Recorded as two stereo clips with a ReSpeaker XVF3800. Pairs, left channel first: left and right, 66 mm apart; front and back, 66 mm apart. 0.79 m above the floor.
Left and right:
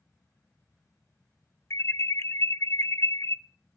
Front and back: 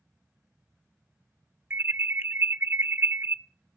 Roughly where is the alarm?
Behind left.